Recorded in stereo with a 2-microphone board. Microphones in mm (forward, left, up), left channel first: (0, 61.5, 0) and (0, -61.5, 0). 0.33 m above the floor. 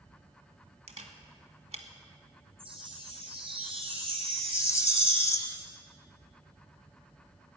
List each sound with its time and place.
0.9 s a camera shutter: 65° right (ahead or behind), 1.5 m
2.6 s a chime: 50° right (ahead or behind), 3.5 m
4.5 s a rattle: 25° left (ahead or behind), 0.6 m